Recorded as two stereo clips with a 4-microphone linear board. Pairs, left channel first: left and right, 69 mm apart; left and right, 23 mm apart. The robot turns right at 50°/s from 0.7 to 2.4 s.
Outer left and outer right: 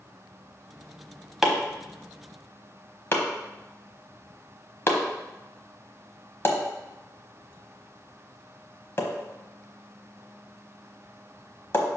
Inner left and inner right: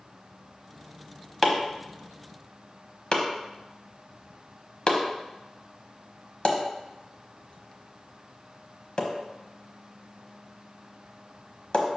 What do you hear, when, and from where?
1.4 s chopping: 5° right (ahead or behind), 1.1 m; by 11.9 s 35° left (ahead or behind), 1.1 m